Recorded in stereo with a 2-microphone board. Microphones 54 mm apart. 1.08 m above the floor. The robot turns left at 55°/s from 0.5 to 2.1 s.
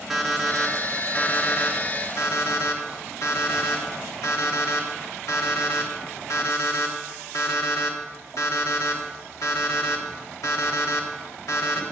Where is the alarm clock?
5° right (ahead or behind), 1.3 m; by 11.8 s 80° left, 1.3 m.